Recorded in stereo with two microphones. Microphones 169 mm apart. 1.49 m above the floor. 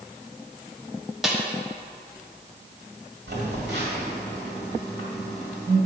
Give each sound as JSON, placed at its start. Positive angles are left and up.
{"t": 1.2, "sound": "a snare drum", "side_deg": 0, "distance_m": 1.1}
{"t": 3.3, "sound": "a phone buzzing", "side_deg": -75, "distance_m": 2.5}